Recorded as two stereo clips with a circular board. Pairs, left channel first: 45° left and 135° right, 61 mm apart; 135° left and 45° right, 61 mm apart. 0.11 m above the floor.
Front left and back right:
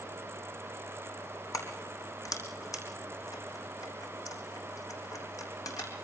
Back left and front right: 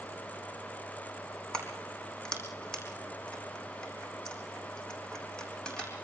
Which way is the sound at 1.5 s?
55° left.